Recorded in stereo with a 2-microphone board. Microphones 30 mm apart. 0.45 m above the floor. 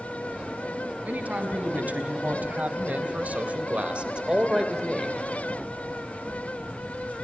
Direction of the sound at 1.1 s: 65° right (ahead or behind).